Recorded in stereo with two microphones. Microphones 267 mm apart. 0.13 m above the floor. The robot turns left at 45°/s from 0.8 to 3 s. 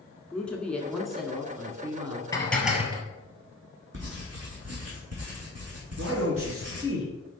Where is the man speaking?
50° right (ahead or behind), 2.5 m.